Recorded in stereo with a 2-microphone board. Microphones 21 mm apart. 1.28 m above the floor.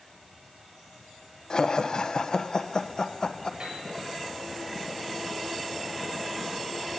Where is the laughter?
35° left (ahead or behind), 1.1 m.